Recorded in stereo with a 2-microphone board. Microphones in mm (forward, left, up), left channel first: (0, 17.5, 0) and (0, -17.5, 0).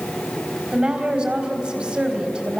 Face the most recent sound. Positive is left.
turn(degrees=-30)  # may be behind; listen again after turning